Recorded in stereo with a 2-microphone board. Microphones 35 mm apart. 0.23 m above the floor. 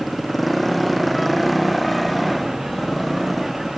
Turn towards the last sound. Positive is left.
turn(degrees=0)  # may be behind; listen again after turning